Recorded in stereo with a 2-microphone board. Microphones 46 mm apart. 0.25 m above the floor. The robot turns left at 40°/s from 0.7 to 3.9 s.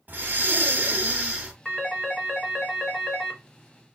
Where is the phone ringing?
155° left, 1.7 m; by 3.4 s 85° left, 1.7 m.